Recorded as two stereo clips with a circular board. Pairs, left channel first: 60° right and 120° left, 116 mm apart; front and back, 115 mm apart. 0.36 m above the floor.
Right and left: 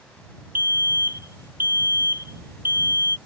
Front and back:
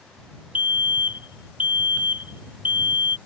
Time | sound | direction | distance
0.6 | a fire alarm | 135° left | ?